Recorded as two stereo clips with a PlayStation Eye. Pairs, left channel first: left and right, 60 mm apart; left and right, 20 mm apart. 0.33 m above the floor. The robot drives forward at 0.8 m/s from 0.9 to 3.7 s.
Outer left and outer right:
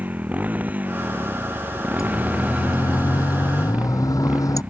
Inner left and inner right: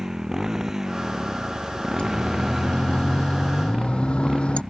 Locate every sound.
0.0 s a motorcycle: 25° right (ahead or behind)
2.0 s a siren: 65° left (ahead or behind); by 4.6 s 75° left (ahead or behind)